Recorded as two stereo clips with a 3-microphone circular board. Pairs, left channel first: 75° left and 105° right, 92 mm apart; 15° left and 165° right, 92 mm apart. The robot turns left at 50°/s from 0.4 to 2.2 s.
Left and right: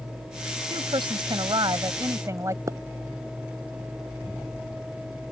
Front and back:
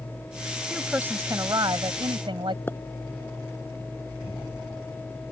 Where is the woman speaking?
80° right; by 2.6 s 155° right.